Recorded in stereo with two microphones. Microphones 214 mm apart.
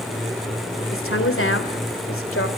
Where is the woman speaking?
80° left, 3 m.